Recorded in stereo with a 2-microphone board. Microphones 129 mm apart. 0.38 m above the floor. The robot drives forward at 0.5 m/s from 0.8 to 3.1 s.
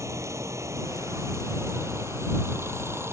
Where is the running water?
25° right (ahead or behind); by 3.1 s 20° right (ahead or behind).